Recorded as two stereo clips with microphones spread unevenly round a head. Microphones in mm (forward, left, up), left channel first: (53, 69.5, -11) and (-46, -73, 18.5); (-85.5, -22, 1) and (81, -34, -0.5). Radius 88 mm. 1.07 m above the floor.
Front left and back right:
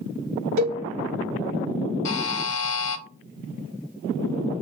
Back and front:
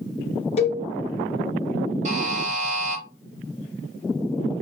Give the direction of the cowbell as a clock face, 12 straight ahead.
4 o'clock.